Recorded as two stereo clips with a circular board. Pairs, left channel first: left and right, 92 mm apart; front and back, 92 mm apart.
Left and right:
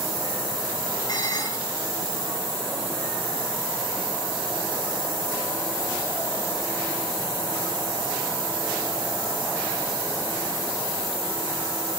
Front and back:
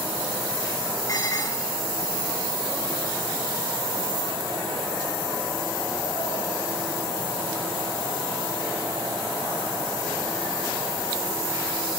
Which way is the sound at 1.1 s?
50° left.